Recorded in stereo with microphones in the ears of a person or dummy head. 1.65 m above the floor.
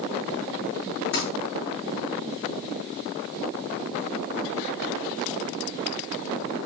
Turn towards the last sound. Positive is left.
turn(degrees=60)  # may be behind; listen again after turning